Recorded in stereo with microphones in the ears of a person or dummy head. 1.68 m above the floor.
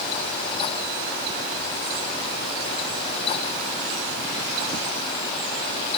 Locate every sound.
Only background noise.